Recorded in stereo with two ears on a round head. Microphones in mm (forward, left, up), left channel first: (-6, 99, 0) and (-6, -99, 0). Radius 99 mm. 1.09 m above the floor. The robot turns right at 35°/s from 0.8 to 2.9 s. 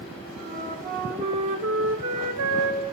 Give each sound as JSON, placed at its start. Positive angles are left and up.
{"t": 0.5, "sound": "a flute", "azimuth_deg": -145, "distance_m": 1.9}